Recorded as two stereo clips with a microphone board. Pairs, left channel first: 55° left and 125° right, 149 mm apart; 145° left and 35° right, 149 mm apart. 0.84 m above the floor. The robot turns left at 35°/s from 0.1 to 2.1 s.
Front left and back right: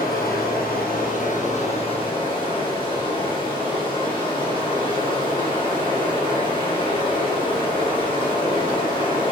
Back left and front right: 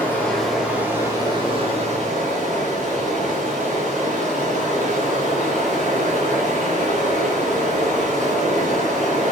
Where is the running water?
70° left, 3 m; by 9.3 s straight ahead, 3 m.